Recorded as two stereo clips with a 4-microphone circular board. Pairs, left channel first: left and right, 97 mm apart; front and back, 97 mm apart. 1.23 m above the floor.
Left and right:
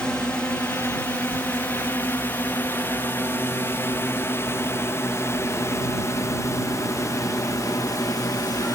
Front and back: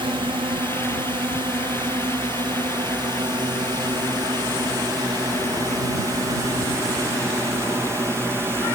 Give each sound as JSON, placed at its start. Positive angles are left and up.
{"t": 0.0, "sound": "a drone", "azimuth_deg": 170}